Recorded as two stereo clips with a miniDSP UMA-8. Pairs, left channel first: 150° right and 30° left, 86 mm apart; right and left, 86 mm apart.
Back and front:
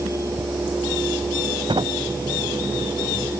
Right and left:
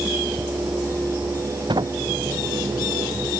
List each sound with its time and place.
1.7 s a sliding door: 60° left